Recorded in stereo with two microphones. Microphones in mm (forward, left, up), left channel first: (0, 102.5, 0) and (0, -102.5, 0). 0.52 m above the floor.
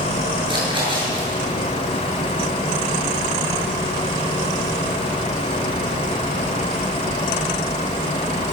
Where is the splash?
25° right (ahead or behind), 10 m.